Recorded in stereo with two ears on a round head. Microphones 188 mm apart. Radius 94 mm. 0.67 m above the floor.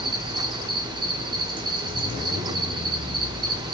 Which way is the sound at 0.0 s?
20° right (ahead or behind).